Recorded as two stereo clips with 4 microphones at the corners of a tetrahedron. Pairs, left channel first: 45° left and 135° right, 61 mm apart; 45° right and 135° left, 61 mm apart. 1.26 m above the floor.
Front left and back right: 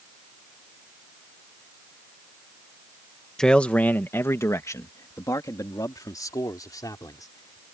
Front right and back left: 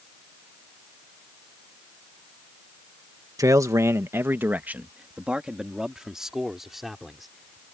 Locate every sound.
3.4 s a man speaking: 125° left; by 7.7 s 45° left